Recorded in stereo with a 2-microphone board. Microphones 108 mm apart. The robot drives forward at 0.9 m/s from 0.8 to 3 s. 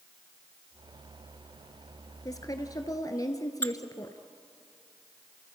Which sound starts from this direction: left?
A woman speaking, at 2.2 s.